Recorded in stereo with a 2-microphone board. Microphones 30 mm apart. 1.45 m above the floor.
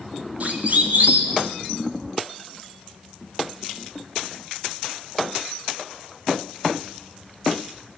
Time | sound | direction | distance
0.4 | a siren | 50° right (ahead or behind) | 4.5 m